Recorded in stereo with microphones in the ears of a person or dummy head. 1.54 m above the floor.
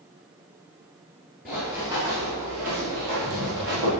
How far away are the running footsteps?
About 1.6 m.